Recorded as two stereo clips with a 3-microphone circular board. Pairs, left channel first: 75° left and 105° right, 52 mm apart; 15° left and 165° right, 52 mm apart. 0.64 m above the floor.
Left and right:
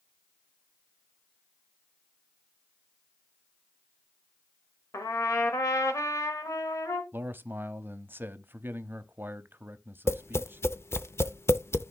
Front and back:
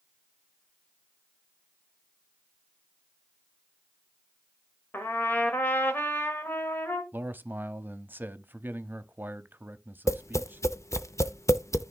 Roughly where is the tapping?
Ahead left.